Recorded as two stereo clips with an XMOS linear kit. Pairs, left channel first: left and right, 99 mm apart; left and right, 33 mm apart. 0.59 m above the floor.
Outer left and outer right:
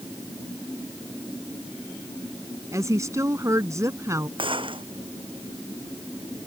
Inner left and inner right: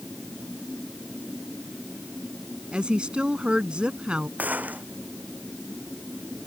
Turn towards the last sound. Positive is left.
turn(degrees=-60)  # may be behind; listen again after turning